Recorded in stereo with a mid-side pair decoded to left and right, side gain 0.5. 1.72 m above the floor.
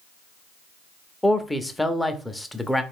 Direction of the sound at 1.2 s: 10° left.